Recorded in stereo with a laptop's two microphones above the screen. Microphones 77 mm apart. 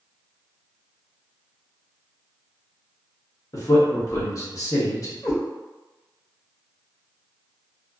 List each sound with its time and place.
3.5 s a man speaking: 45° left (ahead or behind), 1.1 m
5.2 s a cat meowing: 45° left (ahead or behind), 1.6 m